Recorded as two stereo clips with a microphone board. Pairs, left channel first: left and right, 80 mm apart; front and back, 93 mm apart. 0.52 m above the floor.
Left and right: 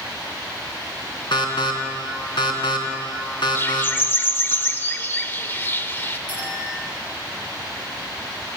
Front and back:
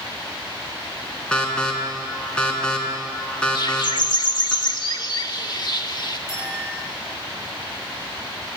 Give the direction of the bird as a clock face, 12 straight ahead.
11 o'clock.